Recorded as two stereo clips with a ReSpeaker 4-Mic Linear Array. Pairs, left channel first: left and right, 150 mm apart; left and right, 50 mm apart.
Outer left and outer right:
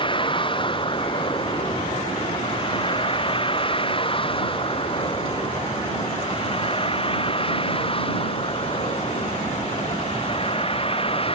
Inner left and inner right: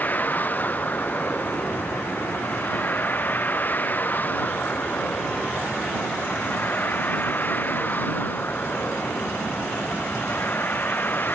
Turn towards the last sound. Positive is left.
turn(degrees=40)  # may be behind; listen again after turning